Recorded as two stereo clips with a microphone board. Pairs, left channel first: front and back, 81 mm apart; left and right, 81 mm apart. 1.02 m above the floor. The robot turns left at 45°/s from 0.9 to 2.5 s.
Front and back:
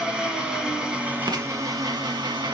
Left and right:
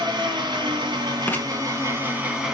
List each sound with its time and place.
0.0 s an engine running: 100° right, 2.5 m; by 2.5 s 170° right, 2.5 m
1.3 s writing: 155° left, 1.2 m; by 1.4 s 150° left, 1.2 m